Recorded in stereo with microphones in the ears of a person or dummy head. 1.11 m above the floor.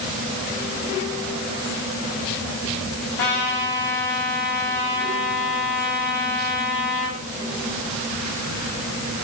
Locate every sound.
3.2 s a trumpet: 55° left (ahead or behind), 7 m